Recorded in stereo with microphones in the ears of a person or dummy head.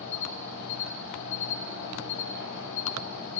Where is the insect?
65° left (ahead or behind), 1.4 m.